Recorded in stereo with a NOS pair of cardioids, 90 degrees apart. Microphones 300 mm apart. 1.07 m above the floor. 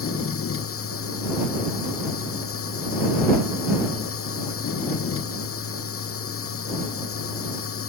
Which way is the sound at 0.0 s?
45° left.